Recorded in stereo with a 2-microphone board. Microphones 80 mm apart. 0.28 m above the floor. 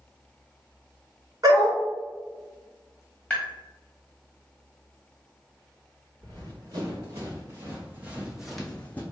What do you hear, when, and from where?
1.4 s a dog barking: 50° right (ahead or behind), 1.5 m
3.3 s tapping: 10° left (ahead or behind), 1.6 m
6.2 s running footsteps: 50° right (ahead or behind), 1.8 m; by 9.0 s 20° left (ahead or behind), 0.8 m